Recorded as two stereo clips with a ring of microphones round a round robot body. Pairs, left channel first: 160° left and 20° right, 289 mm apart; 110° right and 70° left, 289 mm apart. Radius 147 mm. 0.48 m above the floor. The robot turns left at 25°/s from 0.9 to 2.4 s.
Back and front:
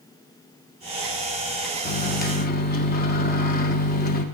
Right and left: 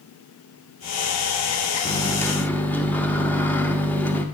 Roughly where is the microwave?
Behind.